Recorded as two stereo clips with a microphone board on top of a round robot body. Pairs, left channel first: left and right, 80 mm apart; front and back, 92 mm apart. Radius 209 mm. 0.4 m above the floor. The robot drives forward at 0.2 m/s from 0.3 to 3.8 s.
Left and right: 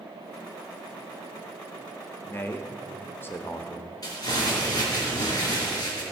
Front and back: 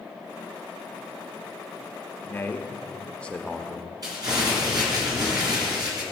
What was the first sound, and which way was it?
A man speaking, 50° left.